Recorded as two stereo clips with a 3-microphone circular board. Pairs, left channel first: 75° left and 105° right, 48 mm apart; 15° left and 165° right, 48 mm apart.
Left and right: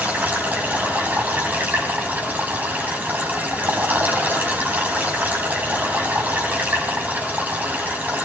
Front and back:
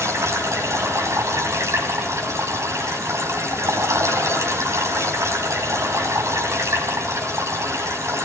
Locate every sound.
0.0 s running water: 160° right, 5.5 m